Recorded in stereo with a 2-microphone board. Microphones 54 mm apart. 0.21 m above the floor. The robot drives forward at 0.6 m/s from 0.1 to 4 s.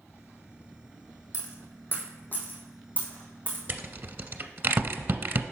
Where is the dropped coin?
55° left (ahead or behind), 1.2 m; by 3.6 s 25° left (ahead or behind), 2.5 m.